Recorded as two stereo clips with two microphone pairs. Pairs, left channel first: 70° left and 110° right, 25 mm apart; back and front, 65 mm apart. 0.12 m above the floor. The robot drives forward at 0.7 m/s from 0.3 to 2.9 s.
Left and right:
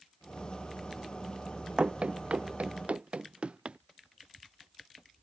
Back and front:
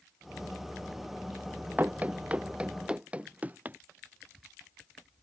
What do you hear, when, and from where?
1.8 s running footsteps: 65° right